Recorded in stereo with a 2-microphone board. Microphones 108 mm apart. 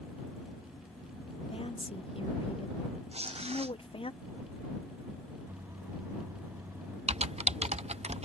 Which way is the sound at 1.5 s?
55° left (ahead or behind).